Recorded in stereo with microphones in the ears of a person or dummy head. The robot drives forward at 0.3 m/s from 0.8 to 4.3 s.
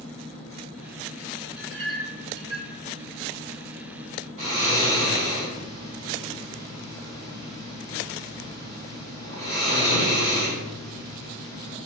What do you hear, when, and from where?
1.6 s a clink: 25° right (ahead or behind), 1.5 m; by 2.7 s 35° right (ahead or behind), 1.2 m
4.4 s snoring: 40° right (ahead or behind), 1.6 m